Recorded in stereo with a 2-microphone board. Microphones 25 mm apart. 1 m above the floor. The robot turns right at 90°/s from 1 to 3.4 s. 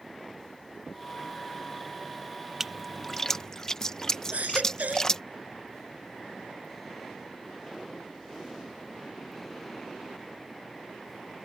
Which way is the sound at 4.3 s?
85° right.